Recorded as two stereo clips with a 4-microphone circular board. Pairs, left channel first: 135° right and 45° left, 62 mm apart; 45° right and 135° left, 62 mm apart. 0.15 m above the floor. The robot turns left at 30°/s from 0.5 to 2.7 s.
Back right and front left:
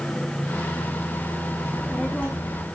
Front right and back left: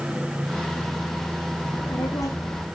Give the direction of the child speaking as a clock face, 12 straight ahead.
2 o'clock.